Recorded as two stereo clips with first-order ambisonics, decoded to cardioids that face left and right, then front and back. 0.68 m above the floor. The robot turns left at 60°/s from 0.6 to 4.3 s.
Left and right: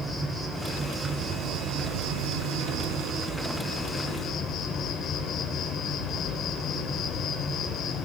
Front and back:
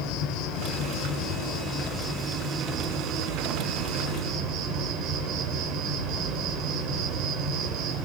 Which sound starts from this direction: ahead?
An insect, at 0.0 s.